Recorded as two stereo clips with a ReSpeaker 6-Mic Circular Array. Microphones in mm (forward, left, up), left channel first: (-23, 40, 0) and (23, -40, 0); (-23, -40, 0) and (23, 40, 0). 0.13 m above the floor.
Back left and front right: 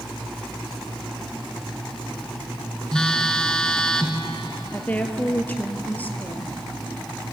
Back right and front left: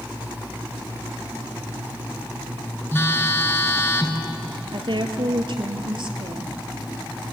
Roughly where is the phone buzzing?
Behind.